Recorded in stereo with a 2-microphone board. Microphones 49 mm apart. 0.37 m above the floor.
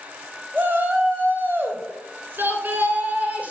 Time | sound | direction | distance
0.5 | a shout | 40° right (ahead or behind) | 2.5 m